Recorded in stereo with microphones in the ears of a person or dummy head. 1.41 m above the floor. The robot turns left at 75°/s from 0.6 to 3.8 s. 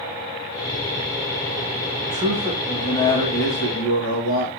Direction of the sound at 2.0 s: 125° right.